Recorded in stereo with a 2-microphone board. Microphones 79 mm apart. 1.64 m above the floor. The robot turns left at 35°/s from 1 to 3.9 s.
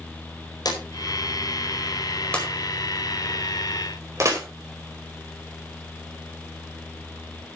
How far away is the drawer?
About 4.5 m.